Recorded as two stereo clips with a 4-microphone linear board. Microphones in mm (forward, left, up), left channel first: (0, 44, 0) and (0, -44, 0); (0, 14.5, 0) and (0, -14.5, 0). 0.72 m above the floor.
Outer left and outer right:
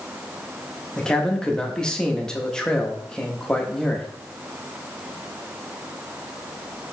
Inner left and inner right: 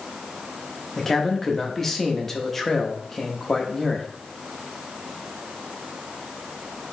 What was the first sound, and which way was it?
A man speaking, 10° left (ahead or behind).